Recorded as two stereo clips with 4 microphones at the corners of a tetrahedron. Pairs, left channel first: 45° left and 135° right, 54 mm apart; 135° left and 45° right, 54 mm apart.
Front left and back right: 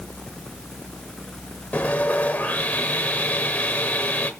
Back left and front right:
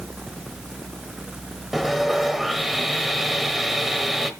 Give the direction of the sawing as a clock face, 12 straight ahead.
11 o'clock.